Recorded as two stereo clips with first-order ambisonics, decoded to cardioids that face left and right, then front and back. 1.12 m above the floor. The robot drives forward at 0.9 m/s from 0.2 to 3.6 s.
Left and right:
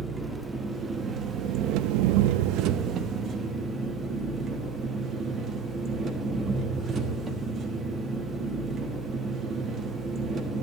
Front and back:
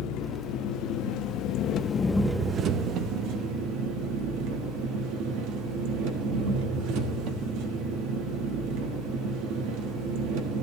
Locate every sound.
0.0 s an engine running: 20° right, 1.9 m; by 10.6 s 155° right, 1.4 m